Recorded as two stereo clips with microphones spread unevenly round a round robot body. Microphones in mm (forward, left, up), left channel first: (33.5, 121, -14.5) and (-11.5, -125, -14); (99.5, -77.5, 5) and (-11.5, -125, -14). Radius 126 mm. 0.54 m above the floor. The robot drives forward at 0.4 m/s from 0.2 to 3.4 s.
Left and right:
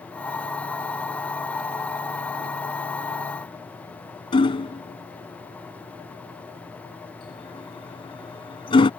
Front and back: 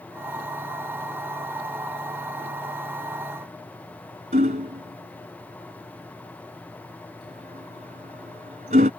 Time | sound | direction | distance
4.3 | hammering | 150° left | ?